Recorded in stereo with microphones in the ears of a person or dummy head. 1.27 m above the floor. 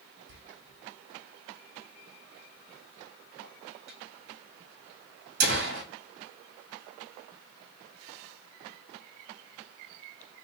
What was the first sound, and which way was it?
A door slam, 60° right (ahead or behind).